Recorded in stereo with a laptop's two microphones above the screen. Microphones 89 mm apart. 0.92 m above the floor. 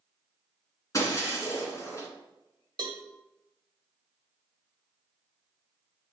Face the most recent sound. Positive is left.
turn(degrees=-55)  # may be behind; listen again after turning